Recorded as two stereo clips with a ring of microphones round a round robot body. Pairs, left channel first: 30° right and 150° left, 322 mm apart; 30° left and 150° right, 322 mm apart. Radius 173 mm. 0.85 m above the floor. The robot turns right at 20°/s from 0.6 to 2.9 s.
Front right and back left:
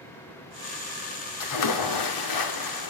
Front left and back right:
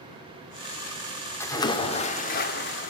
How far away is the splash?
About 2.5 m.